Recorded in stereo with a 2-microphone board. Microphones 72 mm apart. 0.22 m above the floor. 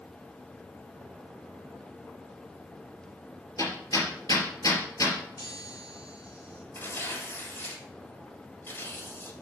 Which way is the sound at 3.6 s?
60° left (ahead or behind).